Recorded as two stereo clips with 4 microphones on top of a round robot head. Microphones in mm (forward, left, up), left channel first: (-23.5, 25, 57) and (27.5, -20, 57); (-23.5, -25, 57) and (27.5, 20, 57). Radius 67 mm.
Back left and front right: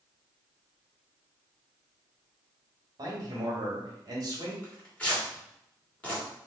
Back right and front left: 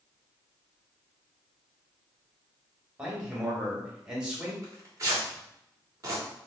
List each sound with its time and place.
3.0 s a man speaking: 35° right, 1.5 m
4.6 s tearing paper: 70° left, 1.6 m